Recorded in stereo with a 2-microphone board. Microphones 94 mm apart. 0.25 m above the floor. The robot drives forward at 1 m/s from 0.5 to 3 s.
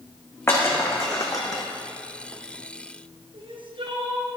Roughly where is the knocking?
I don't hear knocking.